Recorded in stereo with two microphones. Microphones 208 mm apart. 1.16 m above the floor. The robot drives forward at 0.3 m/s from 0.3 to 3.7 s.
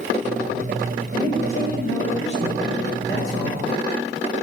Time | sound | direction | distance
1.1 | a man speaking | 75° left (ahead or behind) | 5.5 m